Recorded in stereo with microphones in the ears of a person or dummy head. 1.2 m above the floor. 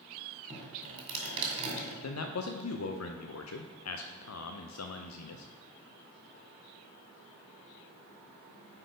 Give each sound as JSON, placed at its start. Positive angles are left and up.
{"t": 0.5, "sound": "dripping", "side_deg": -30, "distance_m": 2.0}
{"t": 2.0, "sound": "a man speaking", "side_deg": 80, "distance_m": 0.6}